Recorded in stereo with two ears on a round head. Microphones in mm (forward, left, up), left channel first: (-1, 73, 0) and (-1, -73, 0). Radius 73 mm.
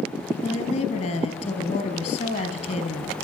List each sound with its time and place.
0.4 s a woman speaking: 45° left (ahead or behind), 4 m